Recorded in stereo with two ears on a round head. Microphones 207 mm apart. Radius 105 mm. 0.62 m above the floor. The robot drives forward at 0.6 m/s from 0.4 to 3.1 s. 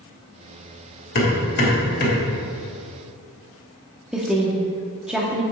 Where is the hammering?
50° left (ahead or behind), 2.5 m; by 2.2 s 40° left (ahead or behind), 3 m.